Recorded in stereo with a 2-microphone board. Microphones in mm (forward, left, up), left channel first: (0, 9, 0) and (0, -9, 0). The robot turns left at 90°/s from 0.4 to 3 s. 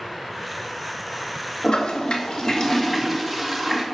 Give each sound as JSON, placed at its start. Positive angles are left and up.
{"t": 1.6, "sound": "a toilet flushing", "azimuth_deg": 140, "distance_m": 1.4}